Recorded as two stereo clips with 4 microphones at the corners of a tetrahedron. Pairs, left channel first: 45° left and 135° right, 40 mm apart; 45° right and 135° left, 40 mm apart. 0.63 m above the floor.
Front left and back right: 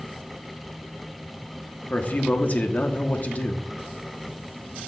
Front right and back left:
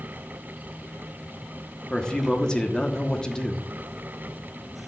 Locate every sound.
1.9 s a man speaking: 15° left, 0.9 m